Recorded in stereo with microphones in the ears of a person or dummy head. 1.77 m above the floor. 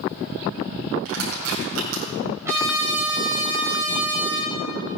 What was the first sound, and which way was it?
Crushing, 75° right (ahead or behind).